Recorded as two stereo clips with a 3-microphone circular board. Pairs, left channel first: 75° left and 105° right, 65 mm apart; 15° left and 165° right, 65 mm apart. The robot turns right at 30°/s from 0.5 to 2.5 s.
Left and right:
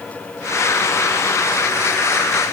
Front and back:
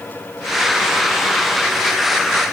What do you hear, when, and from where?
Only background noise.